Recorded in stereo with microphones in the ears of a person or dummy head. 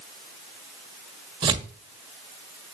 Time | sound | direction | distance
1.4 | tearing paper | 30° right (ahead or behind) | 1.5 m